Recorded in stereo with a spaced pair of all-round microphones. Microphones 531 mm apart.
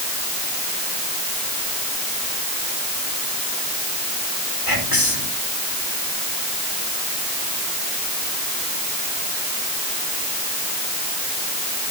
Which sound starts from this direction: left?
Whispering, at 4.7 s.